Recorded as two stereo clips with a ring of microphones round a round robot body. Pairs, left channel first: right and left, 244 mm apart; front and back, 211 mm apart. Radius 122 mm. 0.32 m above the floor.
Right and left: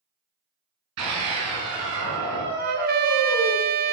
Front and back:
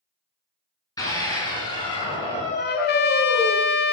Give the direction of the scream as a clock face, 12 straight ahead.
10 o'clock.